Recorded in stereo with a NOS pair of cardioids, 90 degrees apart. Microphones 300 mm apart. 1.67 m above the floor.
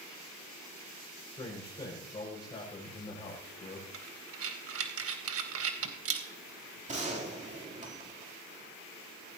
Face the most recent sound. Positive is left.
turn(degrees=-25)